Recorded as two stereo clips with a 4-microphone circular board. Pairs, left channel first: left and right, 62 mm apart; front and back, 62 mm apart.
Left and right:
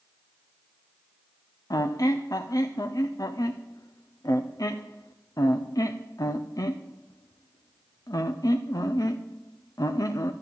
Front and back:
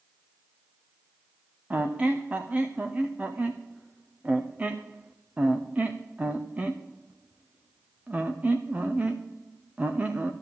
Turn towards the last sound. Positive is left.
turn(degrees=115)